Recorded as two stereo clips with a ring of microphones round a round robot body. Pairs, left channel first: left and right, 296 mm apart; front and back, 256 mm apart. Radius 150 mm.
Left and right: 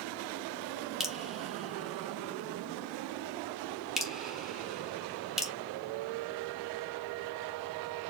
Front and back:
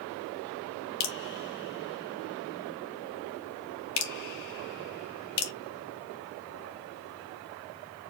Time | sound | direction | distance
1.0 | dripping | straight ahead | 1.2 m